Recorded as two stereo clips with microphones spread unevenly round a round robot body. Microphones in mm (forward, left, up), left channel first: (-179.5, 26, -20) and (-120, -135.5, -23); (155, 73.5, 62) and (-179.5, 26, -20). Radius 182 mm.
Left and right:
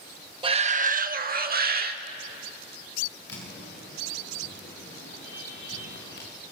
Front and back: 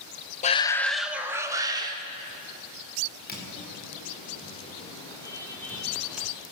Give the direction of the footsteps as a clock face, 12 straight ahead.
10 o'clock.